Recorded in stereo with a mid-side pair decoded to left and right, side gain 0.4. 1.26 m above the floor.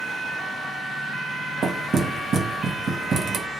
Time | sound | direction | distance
1.6 | knocking | 55° right | 0.9 m